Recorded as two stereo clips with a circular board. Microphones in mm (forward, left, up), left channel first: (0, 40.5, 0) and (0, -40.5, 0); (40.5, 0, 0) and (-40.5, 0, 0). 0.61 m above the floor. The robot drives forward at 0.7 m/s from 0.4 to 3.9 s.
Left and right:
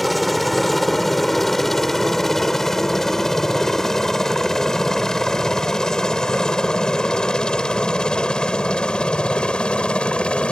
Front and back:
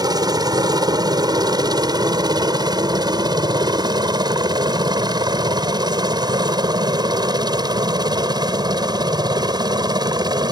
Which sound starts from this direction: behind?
A helicopter, at 0.0 s.